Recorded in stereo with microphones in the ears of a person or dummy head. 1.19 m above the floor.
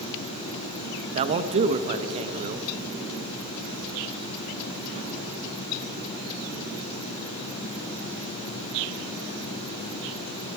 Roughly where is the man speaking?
Right.